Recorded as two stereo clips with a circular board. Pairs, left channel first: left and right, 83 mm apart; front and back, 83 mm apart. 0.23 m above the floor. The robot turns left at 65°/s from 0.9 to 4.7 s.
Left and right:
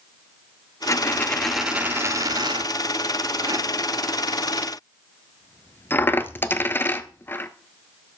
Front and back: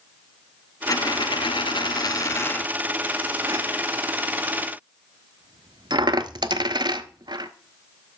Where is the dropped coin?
40° left, 0.5 m; by 7.5 s 155° left, 0.5 m.